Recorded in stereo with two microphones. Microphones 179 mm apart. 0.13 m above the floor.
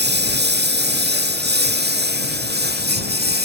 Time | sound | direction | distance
0.0 | a lawn mower | 75° right (ahead or behind) | ?